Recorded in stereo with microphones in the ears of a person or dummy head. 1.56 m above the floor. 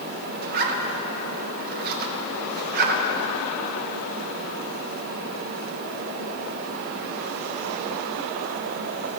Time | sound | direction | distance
0.4 | a zipper | 45° right (ahead or behind) | 1.5 m